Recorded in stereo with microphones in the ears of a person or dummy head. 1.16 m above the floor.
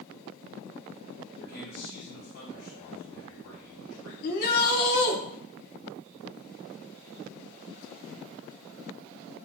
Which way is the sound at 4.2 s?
55° left (ahead or behind).